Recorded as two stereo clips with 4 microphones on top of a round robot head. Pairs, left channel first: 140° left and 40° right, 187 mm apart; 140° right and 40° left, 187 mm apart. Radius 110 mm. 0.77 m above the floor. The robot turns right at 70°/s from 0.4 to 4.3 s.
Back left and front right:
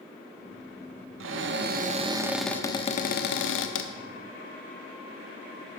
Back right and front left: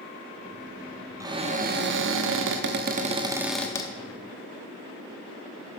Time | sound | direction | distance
1.2 | a cupboard door | 35° right | 0.8 m